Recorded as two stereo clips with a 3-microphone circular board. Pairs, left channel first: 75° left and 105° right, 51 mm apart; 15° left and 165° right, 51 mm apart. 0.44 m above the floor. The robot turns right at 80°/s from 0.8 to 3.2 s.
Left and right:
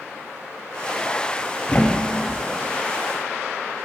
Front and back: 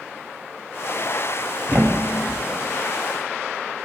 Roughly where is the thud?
Behind left.